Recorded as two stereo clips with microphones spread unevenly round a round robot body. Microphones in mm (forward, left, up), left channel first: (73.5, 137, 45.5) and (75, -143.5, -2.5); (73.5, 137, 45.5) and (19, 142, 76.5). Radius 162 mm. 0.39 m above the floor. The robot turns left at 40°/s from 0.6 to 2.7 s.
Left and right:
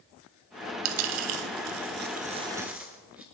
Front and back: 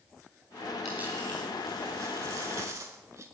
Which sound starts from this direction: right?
A dropped coin, at 0.8 s.